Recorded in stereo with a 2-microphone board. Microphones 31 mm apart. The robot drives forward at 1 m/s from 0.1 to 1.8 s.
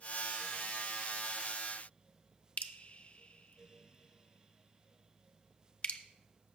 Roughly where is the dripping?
Left.